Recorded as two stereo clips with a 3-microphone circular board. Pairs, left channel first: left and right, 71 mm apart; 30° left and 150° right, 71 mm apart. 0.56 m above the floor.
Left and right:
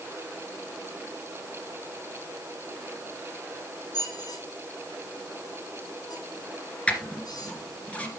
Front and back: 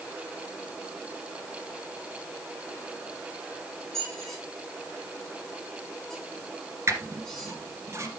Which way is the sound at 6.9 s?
160° left.